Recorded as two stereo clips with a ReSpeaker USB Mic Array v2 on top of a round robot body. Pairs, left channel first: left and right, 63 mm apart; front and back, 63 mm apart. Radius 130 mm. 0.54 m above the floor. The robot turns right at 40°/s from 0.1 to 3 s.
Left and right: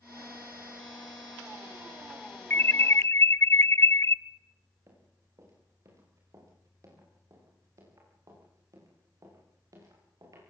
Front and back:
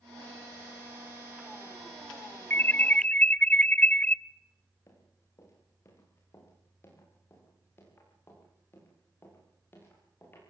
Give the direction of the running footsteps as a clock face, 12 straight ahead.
2 o'clock.